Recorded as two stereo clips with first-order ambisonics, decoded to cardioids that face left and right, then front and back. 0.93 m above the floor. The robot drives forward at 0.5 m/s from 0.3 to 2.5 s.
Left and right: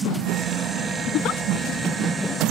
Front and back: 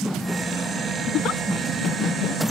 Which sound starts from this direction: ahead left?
A giggle, at 1.1 s.